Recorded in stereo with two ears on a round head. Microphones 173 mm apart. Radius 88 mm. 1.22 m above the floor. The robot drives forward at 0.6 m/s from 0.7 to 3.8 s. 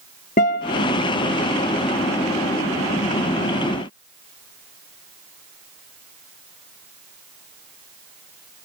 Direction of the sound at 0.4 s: 40° left (ahead or behind).